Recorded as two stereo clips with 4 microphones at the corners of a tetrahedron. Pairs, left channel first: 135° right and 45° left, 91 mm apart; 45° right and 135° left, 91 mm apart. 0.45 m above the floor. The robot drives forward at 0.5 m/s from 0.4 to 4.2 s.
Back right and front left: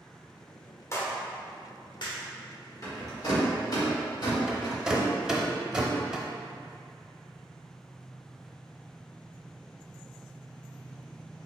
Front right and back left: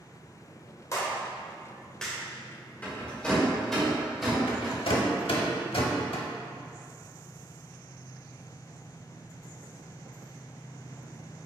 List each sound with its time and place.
0.9 s a clap: 85° right, 0.8 m; by 2.2 s 130° right, 1.0 m
2.8 s a rattle: 110° right, 1.4 m; by 4.8 s 135° right, 1.7 m
4.5 s a rattle: 35° right, 0.6 m